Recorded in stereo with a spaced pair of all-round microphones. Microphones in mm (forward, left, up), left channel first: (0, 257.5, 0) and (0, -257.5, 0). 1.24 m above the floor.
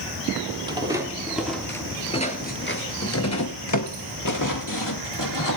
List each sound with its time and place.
0.7 s footsteps: 10° right (ahead or behind), 1.9 m; by 5.6 s 40° left (ahead or behind), 2.5 m